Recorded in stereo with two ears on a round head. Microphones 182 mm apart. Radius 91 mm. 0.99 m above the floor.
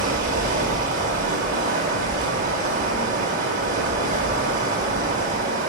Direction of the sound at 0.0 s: 40° right (ahead or behind).